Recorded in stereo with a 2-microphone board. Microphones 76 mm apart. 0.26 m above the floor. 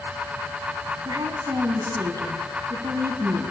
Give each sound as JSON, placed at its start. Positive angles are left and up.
{"t": 1.1, "sound": "a woman speaking", "side_deg": -55, "distance_m": 1.7}